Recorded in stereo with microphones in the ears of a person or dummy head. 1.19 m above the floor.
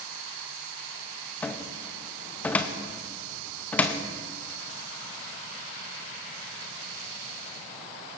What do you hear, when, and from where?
1.4 s a cupboard door: 10° left (ahead or behind), 0.7 m